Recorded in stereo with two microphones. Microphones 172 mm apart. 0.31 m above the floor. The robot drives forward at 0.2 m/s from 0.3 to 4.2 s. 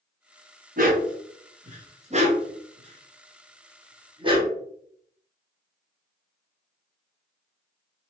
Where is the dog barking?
55° right (ahead or behind), 0.8 m; by 4.5 s 30° right (ahead or behind), 1.3 m.